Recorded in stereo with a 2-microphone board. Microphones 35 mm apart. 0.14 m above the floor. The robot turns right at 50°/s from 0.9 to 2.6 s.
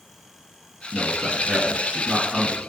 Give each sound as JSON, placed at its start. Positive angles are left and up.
{"t": 0.9, "sound": "a man speaking", "side_deg": -25, "distance_m": 1.1}